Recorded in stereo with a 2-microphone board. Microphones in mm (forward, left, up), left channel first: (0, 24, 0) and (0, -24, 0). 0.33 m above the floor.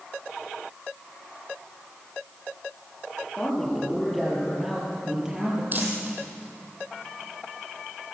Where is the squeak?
I don't hear a squeak.